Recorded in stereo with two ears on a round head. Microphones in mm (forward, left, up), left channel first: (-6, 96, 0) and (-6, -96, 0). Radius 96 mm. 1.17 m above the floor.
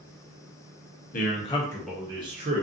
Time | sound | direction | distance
1.1 | a man speaking | 40° left (ahead or behind) | 0.7 m